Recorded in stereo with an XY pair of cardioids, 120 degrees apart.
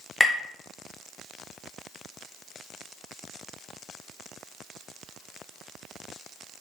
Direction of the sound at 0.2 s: 10° left.